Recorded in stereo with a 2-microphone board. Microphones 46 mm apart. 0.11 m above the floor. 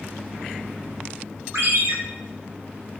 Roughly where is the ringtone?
Right.